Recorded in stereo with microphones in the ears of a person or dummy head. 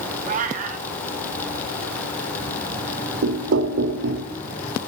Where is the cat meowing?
40° right (ahead or behind), 0.7 m.